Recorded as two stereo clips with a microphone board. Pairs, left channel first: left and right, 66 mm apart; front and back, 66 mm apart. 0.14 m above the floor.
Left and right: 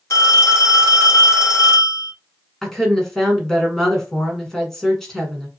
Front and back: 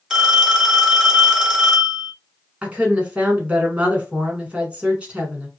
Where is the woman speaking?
160° left, 1.2 m.